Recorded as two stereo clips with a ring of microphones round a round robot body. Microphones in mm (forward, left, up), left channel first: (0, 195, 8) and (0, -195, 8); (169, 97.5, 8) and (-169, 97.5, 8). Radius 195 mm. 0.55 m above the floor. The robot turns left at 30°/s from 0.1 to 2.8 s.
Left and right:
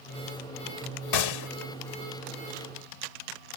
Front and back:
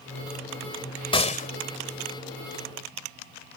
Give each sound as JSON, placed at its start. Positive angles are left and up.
{"t": 1.1, "sound": "a gunshot", "azimuth_deg": 75}